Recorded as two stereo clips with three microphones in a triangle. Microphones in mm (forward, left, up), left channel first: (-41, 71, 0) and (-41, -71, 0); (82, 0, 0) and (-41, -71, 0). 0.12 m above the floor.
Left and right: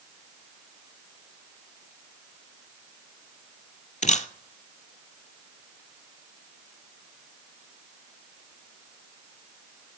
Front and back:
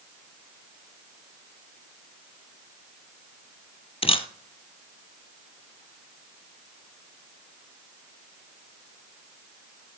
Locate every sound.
4.0 s a camera shutter: 70° left, 0.7 m